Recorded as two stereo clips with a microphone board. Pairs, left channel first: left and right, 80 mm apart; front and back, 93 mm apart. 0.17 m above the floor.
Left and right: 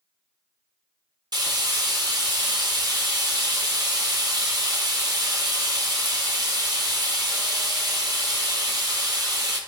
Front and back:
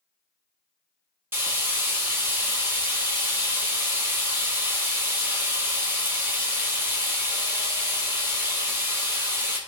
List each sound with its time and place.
1.3 s frying: 115° right, 2.5 m